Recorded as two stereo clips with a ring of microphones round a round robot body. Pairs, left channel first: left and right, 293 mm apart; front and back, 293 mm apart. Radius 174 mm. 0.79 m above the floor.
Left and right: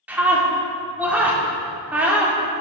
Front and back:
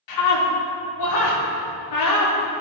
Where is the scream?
5° right, 2 m.